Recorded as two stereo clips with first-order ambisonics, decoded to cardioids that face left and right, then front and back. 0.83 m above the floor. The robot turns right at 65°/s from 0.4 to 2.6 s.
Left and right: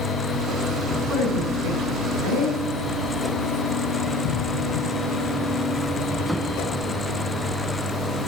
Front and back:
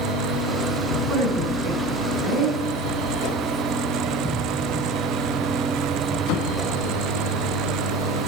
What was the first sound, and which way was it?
A woman speaking, 130° right.